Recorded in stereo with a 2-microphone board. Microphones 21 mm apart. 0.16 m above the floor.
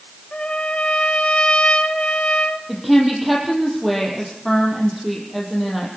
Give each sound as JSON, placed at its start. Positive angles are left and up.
{"t": 0.3, "sound": "a trumpet", "side_deg": 70, "distance_m": 1.5}
{"t": 2.7, "sound": "a woman speaking", "side_deg": 0, "distance_m": 5.5}